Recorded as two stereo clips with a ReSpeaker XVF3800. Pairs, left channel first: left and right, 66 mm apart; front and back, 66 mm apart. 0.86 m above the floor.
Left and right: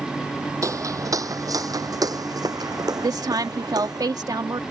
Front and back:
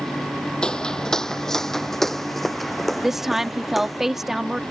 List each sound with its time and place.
0.6 s footsteps: 75° right; by 4.0 s 90° right
3.0 s a woman speaking: 95° right